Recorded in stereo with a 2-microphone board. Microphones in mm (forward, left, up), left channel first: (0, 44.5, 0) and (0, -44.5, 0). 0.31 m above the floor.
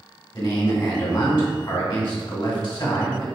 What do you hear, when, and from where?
0.3 s a man speaking: 55° left (ahead or behind), 1.8 m